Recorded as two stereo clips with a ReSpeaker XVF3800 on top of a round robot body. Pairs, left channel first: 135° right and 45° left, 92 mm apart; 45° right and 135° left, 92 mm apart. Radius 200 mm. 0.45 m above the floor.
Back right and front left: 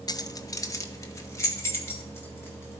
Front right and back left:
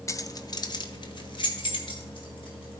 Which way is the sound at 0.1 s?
100° right.